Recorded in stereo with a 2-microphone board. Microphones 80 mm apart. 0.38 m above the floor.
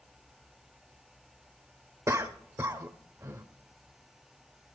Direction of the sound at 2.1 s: 35° right (ahead or behind).